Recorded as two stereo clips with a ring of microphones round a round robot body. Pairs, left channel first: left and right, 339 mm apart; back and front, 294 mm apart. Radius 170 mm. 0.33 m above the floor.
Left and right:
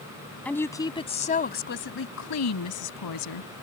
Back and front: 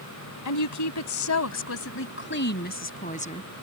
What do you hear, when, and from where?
0.5 s a woman speaking: 175° left; by 3.5 s 110° left